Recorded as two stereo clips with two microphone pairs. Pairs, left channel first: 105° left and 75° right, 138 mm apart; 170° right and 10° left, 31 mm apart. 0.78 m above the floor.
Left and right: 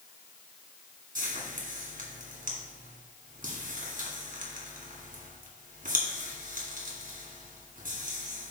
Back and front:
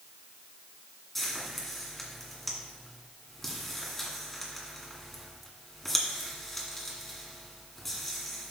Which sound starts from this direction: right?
Frying, at 1.1 s.